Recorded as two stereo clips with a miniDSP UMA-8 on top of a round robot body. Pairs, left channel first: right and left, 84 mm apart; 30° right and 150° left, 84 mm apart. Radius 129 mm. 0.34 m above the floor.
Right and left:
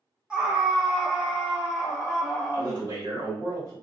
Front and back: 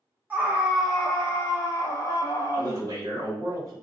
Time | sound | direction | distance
0.3 | a scream | 145° left | 1.0 m
2.5 | a man speaking | 110° left | 1.9 m